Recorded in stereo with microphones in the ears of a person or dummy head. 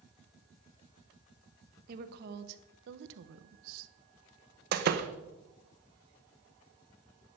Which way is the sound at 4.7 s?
55° right (ahead or behind).